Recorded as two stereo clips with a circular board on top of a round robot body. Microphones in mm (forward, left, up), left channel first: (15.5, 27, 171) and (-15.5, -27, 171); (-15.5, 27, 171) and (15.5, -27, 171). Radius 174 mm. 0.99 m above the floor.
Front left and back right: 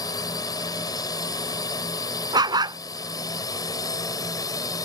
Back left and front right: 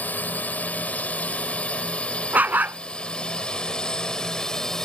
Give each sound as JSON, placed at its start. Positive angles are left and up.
{"t": 0.0, "sound": "a drone", "azimuth_deg": 55}
{"t": 2.3, "sound": "a dog barking", "azimuth_deg": -125}